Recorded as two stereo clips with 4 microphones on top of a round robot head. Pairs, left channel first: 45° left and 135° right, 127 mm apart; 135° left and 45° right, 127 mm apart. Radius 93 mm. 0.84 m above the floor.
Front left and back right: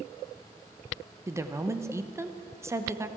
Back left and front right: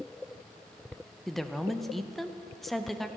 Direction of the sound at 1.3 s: 140° right.